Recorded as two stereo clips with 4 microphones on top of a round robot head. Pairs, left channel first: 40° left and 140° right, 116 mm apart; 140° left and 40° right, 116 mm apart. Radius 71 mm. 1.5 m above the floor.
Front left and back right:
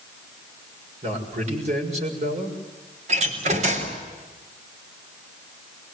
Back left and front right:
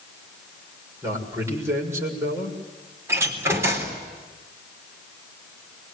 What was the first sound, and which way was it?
A man speaking, 110° right.